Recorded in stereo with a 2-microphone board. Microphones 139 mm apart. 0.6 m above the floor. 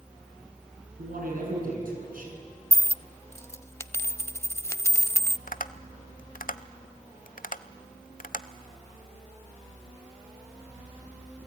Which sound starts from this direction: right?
A man speaking, at 1.0 s.